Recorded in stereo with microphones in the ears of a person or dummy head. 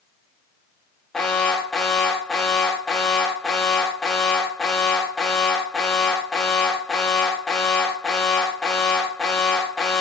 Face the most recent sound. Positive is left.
turn(degrees=-5)  # may be behind; listen again after turning